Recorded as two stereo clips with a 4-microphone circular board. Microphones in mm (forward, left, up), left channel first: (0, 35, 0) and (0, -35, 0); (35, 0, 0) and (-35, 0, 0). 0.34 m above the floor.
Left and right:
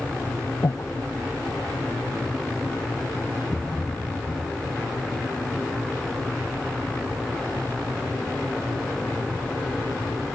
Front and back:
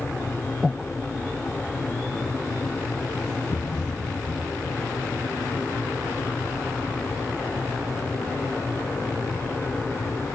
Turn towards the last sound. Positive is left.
turn(degrees=25)